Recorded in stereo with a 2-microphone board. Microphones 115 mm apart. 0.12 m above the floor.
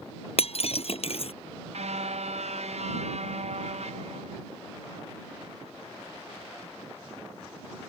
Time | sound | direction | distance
0.4 | breaking glass | 60° left (ahead or behind) | ?
1.7 | a car horn | 70° right (ahead or behind) | ?